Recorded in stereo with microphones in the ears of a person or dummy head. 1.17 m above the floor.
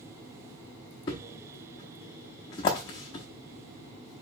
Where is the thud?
25° left (ahead or behind), 0.7 m.